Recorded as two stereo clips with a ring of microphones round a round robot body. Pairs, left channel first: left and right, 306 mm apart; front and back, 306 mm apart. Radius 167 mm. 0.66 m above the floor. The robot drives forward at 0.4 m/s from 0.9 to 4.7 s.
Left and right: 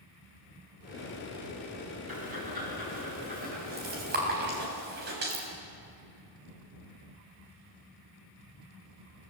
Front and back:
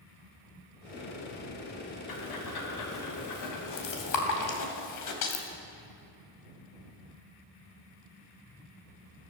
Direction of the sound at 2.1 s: 20° right.